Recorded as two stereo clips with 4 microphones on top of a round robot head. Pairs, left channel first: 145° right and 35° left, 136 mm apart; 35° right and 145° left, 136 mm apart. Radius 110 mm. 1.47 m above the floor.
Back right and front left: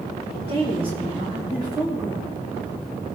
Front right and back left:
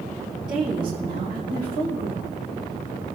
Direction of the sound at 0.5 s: 85° left.